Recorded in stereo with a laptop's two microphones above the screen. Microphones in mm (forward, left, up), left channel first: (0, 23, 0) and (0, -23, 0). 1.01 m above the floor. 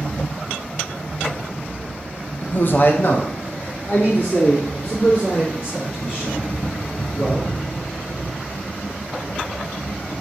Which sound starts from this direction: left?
A man speaking, at 2.4 s.